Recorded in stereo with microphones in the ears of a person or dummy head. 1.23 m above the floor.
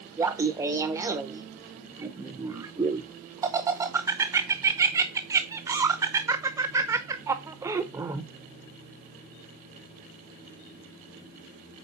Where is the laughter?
20° right (ahead or behind), 0.6 m.